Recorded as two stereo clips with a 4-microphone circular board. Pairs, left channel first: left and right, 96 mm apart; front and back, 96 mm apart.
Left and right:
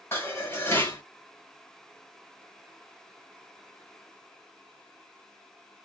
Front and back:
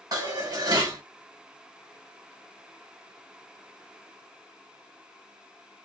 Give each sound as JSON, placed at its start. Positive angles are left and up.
{"t": 0.1, "sound": "dishes clattering", "azimuth_deg": 145, "distance_m": 1.4}